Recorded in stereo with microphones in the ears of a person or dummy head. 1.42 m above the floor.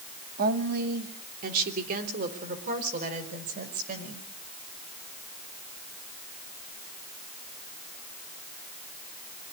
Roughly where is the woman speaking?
Right.